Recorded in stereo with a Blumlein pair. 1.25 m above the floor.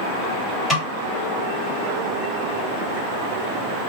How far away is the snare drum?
About 2.5 m.